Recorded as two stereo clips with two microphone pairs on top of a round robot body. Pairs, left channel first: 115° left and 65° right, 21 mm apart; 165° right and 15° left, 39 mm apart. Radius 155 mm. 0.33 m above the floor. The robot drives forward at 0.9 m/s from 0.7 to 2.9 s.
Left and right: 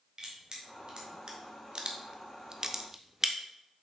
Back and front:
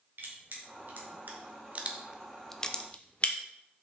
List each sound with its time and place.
0.2 s crushing: 15° right, 1.8 m; by 3.4 s 130° right, 0.9 m